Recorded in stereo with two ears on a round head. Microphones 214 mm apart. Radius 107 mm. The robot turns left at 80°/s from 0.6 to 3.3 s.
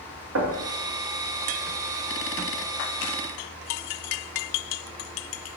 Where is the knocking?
60° right (ahead or behind), 1.7 m.